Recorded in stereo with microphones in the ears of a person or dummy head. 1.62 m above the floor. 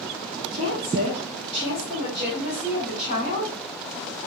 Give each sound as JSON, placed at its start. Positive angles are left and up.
{"t": 0.5, "sound": "a woman speaking", "side_deg": -55, "distance_m": 1.0}